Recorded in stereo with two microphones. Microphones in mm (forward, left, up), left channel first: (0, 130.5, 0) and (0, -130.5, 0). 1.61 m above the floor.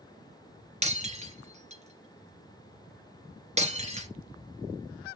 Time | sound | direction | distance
0.8 | breaking glass | 25° right (ahead or behind) | 2.5 m